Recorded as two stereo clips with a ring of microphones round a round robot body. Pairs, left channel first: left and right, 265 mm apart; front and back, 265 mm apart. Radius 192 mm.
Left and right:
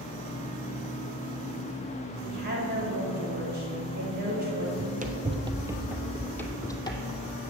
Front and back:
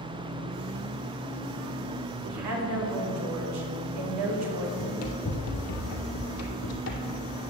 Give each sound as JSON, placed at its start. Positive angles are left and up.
{"t": 2.2, "sound": "a woman speaking", "azimuth_deg": -155, "distance_m": 2.5}
{"t": 4.8, "sound": "running footsteps", "azimuth_deg": -40, "distance_m": 1.6}